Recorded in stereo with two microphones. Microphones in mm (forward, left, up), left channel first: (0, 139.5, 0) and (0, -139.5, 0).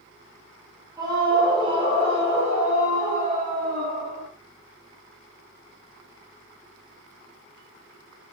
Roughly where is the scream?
Centre.